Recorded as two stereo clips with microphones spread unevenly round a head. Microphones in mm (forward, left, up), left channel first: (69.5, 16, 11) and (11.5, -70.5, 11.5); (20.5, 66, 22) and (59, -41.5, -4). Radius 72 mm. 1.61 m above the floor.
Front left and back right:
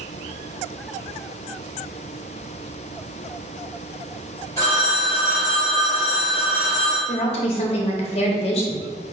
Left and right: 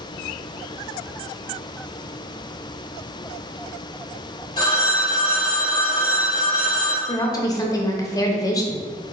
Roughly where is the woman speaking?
Left.